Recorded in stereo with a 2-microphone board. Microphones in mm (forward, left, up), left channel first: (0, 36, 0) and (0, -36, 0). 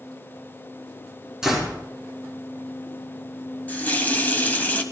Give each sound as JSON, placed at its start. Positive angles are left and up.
{"t": 1.4, "sound": "a door slam", "side_deg": -10, "distance_m": 4.0}
{"t": 3.7, "sound": "a running tap", "side_deg": 25, "distance_m": 1.2}